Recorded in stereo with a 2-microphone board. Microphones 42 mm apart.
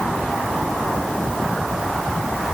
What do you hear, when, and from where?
Only background noise.